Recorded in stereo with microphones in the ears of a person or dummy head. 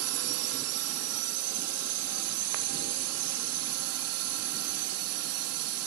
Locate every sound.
0.0 s a drone: 80° right